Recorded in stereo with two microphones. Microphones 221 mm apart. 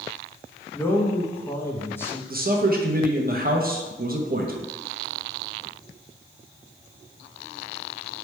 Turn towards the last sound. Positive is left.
turn(degrees=-40)  # may be behind; listen again after turning